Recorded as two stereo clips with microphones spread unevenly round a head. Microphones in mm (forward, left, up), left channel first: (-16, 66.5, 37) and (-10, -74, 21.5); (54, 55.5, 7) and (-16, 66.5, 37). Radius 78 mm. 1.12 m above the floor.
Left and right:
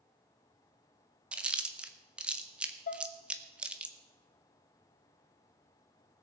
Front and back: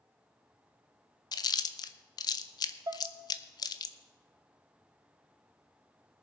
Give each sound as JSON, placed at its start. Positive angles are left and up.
{"t": 1.3, "sound": "chewing", "azimuth_deg": -5, "distance_m": 0.7}
{"t": 2.9, "sound": "dishes clattering", "azimuth_deg": 130, "distance_m": 1.0}